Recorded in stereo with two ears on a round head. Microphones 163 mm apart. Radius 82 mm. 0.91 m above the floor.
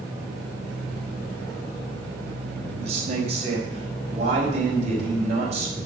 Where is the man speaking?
40° right (ahead or behind), 4 m.